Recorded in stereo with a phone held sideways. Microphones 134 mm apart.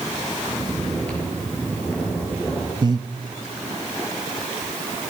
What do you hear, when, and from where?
0.5 s snoring: 10° left (ahead or behind), 6.5 m
2.8 s breathing: 30° right (ahead or behind), 0.9 m